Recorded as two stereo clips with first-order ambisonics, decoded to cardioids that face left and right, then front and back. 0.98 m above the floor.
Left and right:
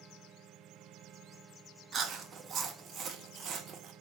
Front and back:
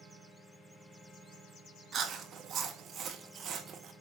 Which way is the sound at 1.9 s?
135° right.